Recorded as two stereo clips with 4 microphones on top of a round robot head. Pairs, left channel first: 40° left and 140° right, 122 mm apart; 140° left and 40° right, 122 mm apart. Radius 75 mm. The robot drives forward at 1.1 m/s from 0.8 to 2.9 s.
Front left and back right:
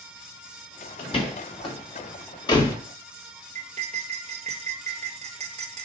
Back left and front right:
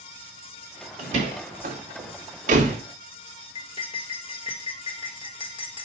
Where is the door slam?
5° right, 3 m; by 2.8 s 20° right, 1.4 m.